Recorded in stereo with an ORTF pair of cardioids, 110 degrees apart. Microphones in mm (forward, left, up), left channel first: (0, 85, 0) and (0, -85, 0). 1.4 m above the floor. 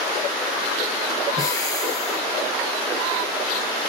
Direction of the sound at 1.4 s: 20° left.